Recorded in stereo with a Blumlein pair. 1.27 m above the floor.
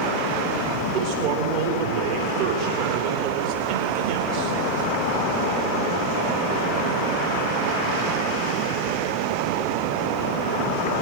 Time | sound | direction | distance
0.9 | a man speaking | 40° right | 3 m